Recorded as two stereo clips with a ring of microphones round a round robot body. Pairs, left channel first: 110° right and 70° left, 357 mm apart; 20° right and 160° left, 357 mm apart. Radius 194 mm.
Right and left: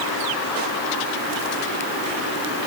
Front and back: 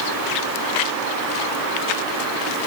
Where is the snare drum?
No snare drum in this recording.